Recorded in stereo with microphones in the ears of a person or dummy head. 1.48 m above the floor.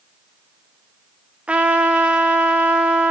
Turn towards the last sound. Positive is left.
turn(degrees=-5)  # may be behind; listen again after turning